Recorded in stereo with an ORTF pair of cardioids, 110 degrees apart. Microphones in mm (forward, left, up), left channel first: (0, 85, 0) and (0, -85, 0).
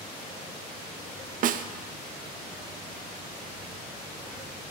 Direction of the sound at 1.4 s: 55° right.